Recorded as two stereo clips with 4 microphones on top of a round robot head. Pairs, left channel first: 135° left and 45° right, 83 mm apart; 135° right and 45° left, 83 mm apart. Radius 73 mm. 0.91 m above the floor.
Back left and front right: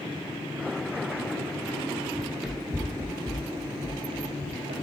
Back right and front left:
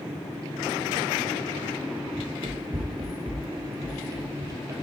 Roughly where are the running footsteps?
Ahead left.